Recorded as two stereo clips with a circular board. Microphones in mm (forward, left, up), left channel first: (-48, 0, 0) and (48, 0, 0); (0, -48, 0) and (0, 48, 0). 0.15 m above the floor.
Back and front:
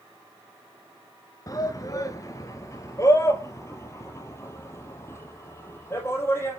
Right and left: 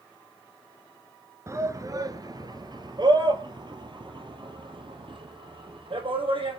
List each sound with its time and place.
1.5 s a shout: 140° left, 2.0 m; by 6.6 s 115° left, 6 m